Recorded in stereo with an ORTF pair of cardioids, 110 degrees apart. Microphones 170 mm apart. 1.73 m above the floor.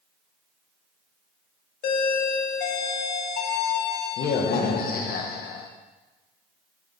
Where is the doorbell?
65° left, 1.2 m.